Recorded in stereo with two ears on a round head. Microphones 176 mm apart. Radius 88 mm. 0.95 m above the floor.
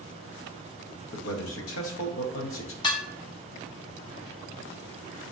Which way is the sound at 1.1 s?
70° left (ahead or behind).